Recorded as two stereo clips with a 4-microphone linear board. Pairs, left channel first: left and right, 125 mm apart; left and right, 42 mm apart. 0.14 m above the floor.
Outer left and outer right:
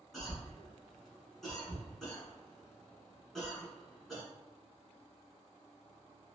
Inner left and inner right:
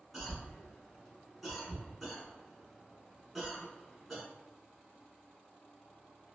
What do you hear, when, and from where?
0.1 s a cough: centre (ahead or behind), 1.1 m